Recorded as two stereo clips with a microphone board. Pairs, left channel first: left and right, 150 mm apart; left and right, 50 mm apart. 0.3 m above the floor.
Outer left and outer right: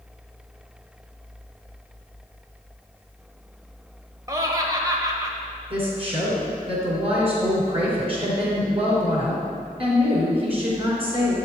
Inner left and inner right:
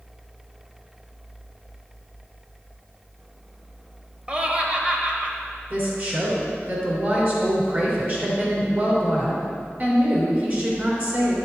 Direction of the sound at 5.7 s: 40° right (ahead or behind).